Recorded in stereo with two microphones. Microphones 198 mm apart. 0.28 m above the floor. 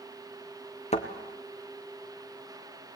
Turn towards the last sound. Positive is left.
turn(degrees=35)  # may be behind; listen again after turning